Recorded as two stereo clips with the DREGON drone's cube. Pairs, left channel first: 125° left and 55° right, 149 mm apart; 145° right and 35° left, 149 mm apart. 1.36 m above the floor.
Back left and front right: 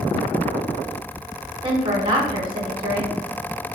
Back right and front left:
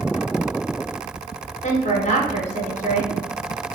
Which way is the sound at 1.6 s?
110° right.